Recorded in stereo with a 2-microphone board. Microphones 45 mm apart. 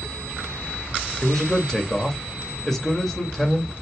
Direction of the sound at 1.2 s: 10° left (ahead or behind).